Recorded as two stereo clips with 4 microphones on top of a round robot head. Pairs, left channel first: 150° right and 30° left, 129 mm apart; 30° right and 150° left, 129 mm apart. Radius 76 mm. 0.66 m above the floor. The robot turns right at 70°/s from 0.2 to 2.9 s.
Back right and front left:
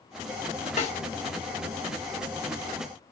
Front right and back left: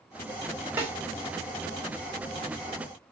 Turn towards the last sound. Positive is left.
turn(degrees=10)